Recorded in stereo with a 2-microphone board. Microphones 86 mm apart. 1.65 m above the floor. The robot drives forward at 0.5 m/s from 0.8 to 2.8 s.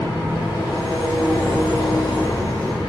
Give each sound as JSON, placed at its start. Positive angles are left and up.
{"t": 0.0, "sound": "an engine running", "side_deg": 65, "distance_m": 2.0}